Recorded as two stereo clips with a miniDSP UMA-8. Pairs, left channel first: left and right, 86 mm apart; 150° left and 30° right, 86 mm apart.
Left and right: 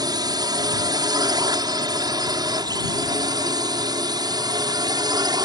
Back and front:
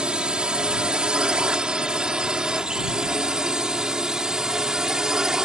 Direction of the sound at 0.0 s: 105° right.